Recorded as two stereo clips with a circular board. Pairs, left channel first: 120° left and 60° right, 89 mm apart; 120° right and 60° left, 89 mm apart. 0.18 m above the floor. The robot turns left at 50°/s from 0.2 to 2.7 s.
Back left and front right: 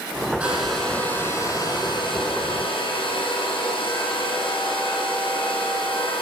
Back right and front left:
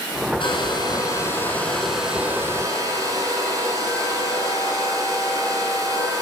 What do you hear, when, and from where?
0.4 s a hair dryer: 130° right, 7 m; by 6.2 s 115° left, 7 m